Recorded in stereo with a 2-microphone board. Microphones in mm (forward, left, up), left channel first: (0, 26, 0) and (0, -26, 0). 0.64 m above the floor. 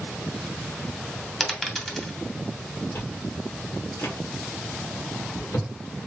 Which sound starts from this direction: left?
Chewing, at 3.0 s.